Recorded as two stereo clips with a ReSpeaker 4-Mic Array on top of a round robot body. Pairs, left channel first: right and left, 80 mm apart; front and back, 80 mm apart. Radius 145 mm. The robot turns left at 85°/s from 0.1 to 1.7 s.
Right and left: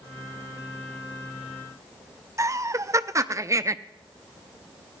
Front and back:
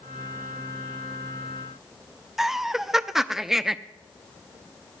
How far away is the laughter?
About 0.7 m.